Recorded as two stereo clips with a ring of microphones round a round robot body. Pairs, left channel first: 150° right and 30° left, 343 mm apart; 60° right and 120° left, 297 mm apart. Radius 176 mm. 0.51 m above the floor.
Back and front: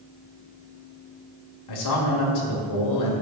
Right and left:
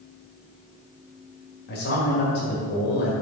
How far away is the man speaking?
About 1.7 m.